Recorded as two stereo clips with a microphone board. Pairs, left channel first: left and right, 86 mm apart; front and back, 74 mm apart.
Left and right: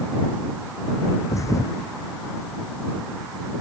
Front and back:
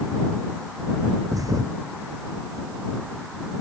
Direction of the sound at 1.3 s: 140° left.